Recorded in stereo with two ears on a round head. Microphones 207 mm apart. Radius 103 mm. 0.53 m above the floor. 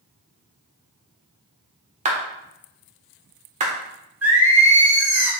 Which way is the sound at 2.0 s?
30° right (ahead or behind).